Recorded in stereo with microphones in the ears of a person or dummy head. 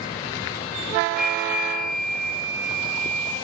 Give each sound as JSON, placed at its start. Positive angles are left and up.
{"t": 1.2, "sound": "a flute", "side_deg": -5, "distance_m": 3.0}